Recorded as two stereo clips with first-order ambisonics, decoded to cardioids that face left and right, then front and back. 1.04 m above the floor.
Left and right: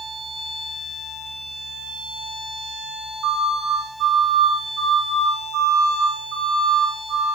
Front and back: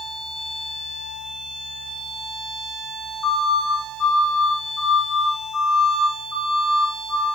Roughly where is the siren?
Ahead right.